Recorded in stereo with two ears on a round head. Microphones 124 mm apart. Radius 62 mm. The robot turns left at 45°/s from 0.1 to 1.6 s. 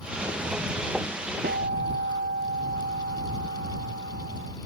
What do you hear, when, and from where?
1.4 s a guitar: 70° right (ahead or behind); by 4.6 s 65° right (ahead or behind)